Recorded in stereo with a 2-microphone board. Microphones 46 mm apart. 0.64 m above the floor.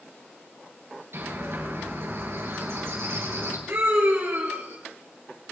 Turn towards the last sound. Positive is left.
turn(degrees=-55)  # may be behind; listen again after turning